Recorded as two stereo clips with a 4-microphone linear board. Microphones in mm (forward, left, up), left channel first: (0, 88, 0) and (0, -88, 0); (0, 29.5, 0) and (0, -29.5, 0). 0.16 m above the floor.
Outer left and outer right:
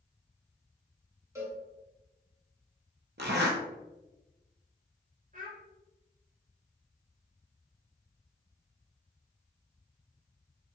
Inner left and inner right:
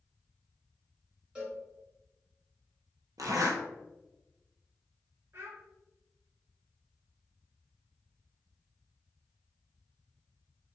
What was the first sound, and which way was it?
A cowbell, 15° right (ahead or behind).